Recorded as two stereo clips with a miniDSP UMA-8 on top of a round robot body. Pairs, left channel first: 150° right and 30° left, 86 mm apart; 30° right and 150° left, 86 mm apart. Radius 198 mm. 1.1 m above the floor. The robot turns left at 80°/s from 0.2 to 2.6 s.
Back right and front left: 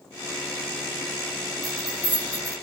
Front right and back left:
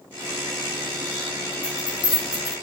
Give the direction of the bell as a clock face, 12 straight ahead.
12 o'clock.